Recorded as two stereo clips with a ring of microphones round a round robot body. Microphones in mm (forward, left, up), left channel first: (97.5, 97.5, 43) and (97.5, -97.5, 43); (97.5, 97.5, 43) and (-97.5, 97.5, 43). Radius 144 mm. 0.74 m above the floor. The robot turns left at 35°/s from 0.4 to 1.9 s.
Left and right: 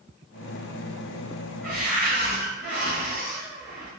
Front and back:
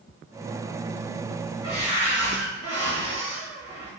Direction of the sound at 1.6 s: 125° right.